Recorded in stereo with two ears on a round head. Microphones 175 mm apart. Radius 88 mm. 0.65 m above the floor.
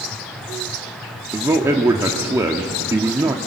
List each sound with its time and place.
1.3 s a man speaking: 15° right (ahead or behind), 1.0 m